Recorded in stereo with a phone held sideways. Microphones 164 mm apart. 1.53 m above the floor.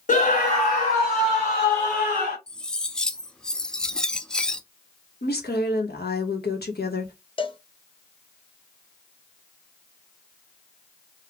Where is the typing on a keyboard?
I don't hear typing on a keyboard.